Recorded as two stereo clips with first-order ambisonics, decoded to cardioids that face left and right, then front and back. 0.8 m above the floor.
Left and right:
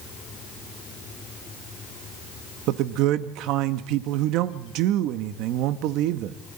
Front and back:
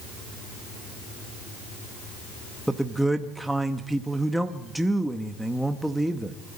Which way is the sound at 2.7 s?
95° right.